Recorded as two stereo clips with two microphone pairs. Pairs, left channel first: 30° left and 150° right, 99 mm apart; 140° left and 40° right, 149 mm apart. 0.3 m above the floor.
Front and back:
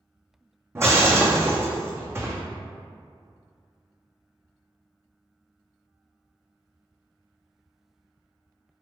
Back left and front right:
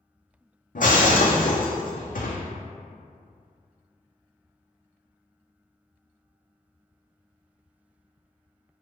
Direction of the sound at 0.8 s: 145° left.